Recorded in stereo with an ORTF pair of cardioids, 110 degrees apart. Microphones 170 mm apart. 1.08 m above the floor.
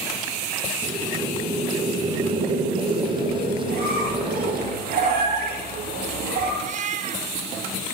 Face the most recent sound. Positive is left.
turn(degrees=-50)